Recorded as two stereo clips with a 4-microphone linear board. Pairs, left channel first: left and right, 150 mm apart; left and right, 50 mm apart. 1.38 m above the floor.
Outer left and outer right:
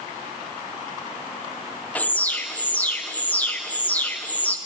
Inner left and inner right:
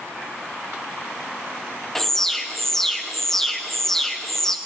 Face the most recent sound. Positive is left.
turn(degrees=10)  # may be behind; listen again after turning